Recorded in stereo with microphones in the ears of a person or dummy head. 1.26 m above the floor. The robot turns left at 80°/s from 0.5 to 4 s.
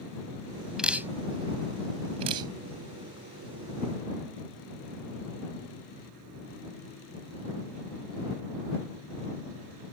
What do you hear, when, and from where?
0.8 s dripping: 5° right (ahead or behind); by 2.5 s 15° right (ahead or behind)